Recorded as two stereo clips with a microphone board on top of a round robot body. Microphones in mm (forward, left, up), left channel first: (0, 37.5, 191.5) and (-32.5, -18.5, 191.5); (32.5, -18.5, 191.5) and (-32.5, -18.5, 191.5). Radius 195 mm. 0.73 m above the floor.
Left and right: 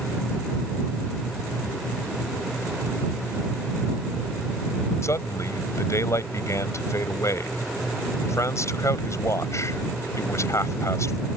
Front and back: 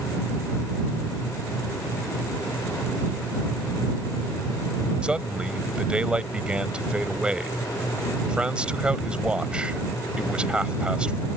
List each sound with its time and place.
5.0 s a man speaking: 105° left